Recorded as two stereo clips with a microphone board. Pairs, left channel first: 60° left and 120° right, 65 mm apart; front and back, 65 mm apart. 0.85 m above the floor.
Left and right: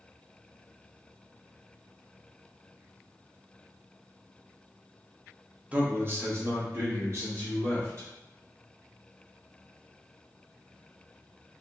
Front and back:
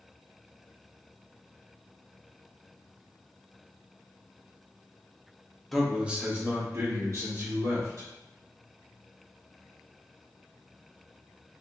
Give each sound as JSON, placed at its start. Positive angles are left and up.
{"t": 5.7, "sound": "a man speaking", "azimuth_deg": -85, "distance_m": 0.6}